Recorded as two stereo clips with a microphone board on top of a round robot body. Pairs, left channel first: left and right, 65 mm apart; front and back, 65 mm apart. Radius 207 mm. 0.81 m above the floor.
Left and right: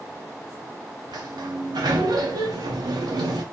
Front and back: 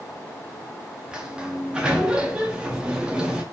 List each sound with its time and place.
1.1 s a sliding door: 105° right, 0.6 m